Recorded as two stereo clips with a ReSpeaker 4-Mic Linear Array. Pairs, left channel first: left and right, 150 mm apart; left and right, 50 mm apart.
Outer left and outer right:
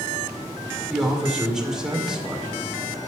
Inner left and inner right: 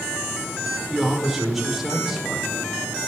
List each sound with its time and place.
0.9 s a man speaking: 5° right (ahead or behind), 1.9 m